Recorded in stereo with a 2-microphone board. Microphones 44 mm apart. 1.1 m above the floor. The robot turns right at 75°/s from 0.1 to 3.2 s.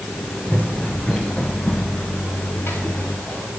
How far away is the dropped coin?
I don't hear a dropped coin.